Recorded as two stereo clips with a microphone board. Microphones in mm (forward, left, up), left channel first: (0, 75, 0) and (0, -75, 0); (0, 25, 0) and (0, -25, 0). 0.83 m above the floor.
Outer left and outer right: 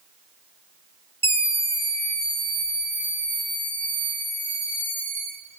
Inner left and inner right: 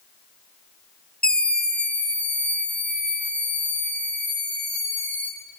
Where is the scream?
15° left (ahead or behind), 0.9 m; by 5.3 s 30° left (ahead or behind), 6.5 m.